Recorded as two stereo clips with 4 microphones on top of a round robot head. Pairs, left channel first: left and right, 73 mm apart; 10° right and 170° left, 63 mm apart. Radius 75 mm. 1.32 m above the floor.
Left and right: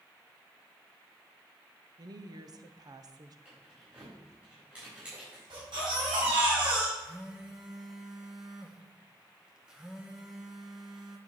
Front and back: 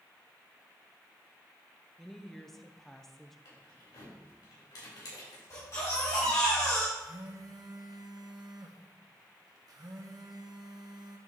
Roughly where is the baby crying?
Ahead right.